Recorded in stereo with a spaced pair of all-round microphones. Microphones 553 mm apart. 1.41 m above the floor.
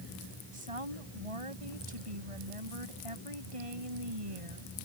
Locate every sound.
0.5 s a woman speaking: 65° right (ahead or behind)